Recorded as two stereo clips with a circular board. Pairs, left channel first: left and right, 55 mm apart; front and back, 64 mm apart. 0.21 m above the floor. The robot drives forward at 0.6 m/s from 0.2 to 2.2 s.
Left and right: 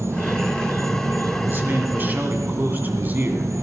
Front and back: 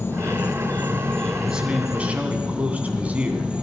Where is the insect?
55° right, 1.5 m; by 3.6 s 105° right, 1.3 m.